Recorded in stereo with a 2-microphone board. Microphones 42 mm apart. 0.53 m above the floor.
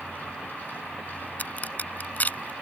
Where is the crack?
45° left (ahead or behind).